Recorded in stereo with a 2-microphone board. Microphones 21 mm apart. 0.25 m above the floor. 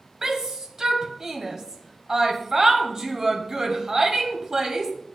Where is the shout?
30° right (ahead or behind), 1.1 m.